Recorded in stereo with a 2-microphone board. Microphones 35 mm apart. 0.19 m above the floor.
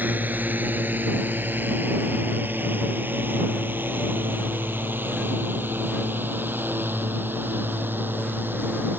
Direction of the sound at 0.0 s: 60° right (ahead or behind).